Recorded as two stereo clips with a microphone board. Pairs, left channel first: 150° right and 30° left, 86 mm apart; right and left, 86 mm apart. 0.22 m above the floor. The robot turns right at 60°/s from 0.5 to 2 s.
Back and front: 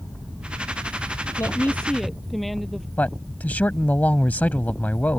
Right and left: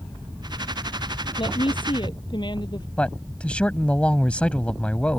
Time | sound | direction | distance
1.4 | a woman speaking | 100° right | ?
3.0 | a man speaking | 135° right | ?